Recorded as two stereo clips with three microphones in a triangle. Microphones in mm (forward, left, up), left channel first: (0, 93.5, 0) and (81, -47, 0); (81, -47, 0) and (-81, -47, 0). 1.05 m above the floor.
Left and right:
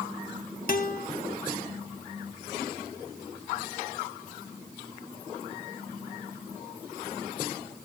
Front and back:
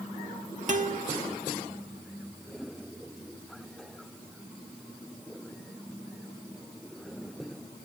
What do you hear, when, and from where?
0.7 s a guitar: 145° left, 1.0 m